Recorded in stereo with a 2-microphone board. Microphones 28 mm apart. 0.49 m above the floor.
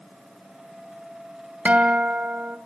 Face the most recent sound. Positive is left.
turn(degrees=-55)  # may be behind; listen again after turning